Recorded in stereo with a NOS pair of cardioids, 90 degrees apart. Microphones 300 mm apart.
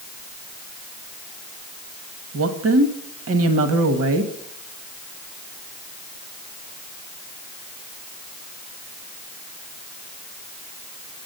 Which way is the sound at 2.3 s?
50° right.